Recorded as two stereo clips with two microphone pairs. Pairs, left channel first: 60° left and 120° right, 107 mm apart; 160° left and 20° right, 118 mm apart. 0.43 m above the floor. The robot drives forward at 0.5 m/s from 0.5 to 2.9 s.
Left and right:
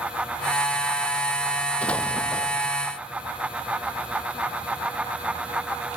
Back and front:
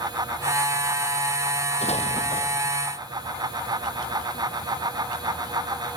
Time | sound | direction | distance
1.8 | an explosion | 140° left | ?